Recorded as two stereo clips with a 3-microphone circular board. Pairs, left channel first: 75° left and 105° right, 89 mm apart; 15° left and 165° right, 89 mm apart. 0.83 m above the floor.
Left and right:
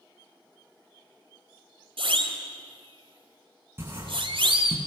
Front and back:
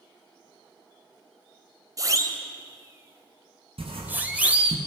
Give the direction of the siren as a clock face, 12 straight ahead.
4 o'clock.